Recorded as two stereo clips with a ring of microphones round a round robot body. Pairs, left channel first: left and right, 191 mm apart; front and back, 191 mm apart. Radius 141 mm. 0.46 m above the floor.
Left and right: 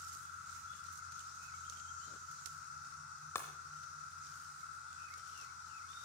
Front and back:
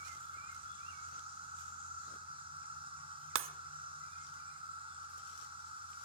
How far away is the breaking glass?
About 0.6 m.